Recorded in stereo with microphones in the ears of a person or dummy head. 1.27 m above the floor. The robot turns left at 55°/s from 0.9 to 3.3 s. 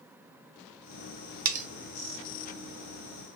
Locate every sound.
1.4 s cutlery clinking: 50° right (ahead or behind), 0.6 m; by 1.7 s 40° right (ahead or behind), 0.6 m